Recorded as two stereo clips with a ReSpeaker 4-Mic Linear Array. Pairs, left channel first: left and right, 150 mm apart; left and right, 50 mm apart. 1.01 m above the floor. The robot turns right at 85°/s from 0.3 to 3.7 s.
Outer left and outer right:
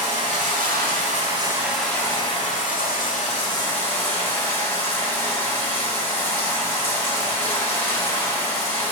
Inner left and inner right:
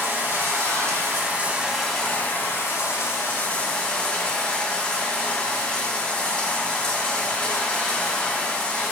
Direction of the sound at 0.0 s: 125° right.